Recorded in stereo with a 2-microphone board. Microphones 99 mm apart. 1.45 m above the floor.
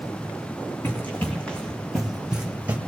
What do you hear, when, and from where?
0.8 s running footsteps: 20° left (ahead or behind), 4 m; by 2.8 s 15° right (ahead or behind), 3 m